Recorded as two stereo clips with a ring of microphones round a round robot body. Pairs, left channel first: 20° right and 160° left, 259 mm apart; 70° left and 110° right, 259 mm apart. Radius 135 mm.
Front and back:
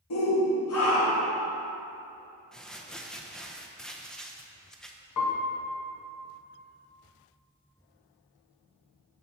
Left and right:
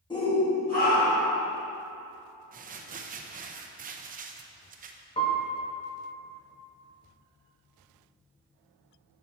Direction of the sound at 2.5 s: 105° right.